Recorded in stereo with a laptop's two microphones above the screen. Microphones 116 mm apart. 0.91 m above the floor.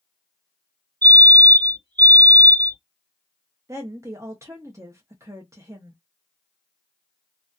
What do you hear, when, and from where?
1.0 s a fire alarm: 40° right (ahead or behind), 1.8 m
3.7 s a woman speaking: 30° right (ahead or behind), 0.5 m